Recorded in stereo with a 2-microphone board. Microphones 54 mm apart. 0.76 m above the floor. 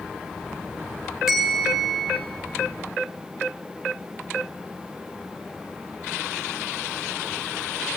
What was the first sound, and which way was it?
A bell, 5° right (ahead or behind).